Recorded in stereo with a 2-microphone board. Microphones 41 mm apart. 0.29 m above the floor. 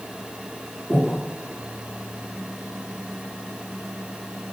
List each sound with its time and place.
0.9 s breathing: 5° left (ahead or behind), 1.2 m